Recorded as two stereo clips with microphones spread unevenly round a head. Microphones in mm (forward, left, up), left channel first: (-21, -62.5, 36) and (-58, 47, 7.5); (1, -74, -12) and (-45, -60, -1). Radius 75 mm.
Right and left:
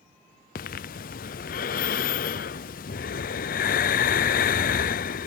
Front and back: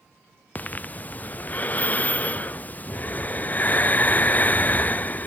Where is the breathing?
70° right.